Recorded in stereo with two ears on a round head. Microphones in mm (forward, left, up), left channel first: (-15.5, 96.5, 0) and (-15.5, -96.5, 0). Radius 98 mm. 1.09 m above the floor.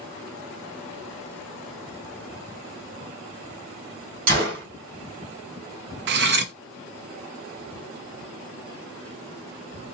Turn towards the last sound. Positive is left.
turn(degrees=-55)  # may be behind; listen again after turning